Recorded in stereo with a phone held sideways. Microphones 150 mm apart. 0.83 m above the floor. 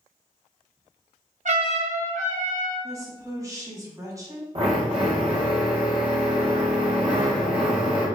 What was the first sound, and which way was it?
A trumpet, 55° right (ahead or behind).